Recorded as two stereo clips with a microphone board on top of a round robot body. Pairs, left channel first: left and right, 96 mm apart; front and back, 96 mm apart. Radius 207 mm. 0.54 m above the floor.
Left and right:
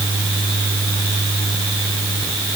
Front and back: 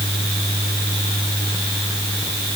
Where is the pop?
I don't hear a pop.